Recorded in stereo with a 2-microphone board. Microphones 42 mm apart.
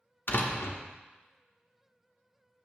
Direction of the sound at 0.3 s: 65° left (ahead or behind).